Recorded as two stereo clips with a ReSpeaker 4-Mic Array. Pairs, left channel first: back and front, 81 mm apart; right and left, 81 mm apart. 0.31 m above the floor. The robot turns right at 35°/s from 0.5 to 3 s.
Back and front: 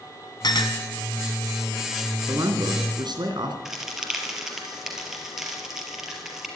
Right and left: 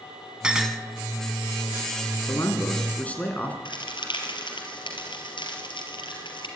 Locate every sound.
0.4 s a clink: 170° left, 1.5 m; by 0.8 s straight behind, 1.5 m
2.3 s a man speaking: 45° right, 3 m; by 3.5 s 20° right, 3 m
3.6 s a crack: 85° right, 4 m